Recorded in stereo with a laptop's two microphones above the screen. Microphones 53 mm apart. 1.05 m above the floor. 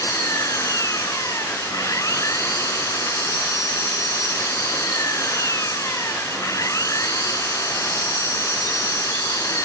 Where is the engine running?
85° left.